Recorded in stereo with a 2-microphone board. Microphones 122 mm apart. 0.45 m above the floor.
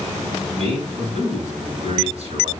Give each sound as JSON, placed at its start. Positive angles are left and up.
{"t": 0.6, "sound": "a man speaking", "side_deg": -55, "distance_m": 4.0}